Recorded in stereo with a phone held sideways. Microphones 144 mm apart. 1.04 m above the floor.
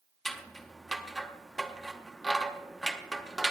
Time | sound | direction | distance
0.2 | scissors | centre (ahead or behind) | 0.8 m